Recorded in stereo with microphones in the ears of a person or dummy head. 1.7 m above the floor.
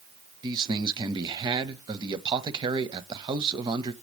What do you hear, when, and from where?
0.4 s a man speaking: 20° right (ahead or behind), 0.6 m